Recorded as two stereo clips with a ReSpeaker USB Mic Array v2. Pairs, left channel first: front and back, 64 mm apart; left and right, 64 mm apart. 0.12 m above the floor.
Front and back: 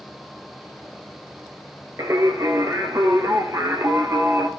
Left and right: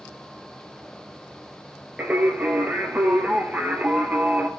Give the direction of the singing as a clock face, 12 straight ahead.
5 o'clock.